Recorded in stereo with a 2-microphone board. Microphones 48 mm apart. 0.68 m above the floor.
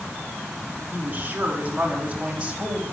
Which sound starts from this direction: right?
A woman speaking, at 0.9 s.